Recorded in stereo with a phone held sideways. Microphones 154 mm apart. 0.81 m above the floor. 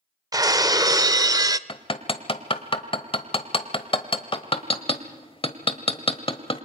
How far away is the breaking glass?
About 0.5 m.